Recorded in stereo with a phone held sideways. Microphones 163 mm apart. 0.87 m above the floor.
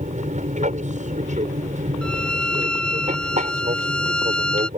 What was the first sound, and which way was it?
An aircraft, 50° right (ahead or behind).